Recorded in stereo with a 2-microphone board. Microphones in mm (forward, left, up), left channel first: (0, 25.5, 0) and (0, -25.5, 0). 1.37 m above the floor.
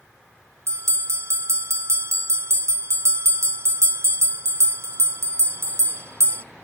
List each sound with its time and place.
0.7 s a bell: 65° right (ahead or behind), 0.9 m